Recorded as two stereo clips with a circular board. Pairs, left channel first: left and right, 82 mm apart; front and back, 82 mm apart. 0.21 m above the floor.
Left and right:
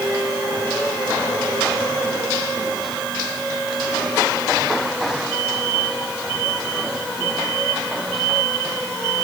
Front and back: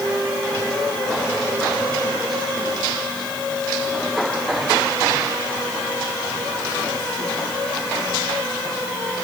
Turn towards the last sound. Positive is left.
No sound to turn to.